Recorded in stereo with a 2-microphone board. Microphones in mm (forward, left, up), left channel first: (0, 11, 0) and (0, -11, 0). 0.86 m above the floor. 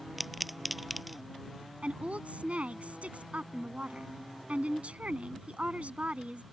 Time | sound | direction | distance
0.2 | a pop | 5° right (ahead or behind) | ?
1.8 | a woman speaking | 70° right (ahead or behind) | ?